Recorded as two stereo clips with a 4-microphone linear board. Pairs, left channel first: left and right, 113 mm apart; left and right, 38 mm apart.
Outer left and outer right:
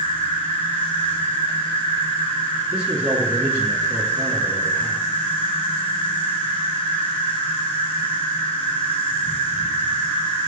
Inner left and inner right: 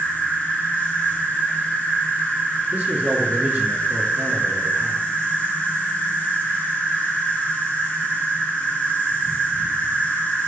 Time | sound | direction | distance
0.0 | an insect | 50° left (ahead or behind) | 1.9 m
2.7 | a man speaking | 45° right (ahead or behind) | 1.7 m